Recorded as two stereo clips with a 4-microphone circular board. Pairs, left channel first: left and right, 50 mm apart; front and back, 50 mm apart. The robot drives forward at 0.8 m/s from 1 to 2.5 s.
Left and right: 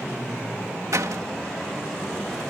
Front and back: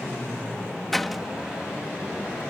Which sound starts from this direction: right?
A door slam, at 0.9 s.